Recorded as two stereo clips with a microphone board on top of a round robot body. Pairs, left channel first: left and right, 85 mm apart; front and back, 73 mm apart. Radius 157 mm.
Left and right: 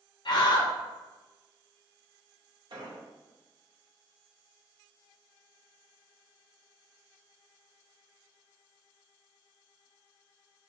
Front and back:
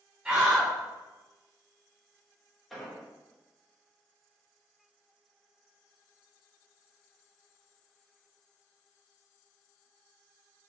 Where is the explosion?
90° right, 1.3 m.